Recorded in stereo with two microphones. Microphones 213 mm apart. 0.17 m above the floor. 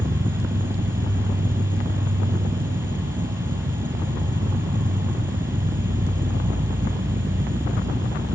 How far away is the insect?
About 1.5 m.